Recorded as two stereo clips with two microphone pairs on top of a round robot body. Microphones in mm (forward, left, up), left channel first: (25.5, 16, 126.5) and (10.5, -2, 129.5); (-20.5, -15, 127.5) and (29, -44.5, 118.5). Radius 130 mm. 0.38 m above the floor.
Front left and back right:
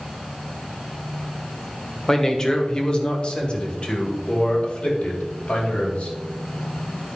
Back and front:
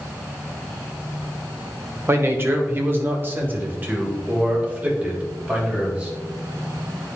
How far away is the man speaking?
About 1.7 m.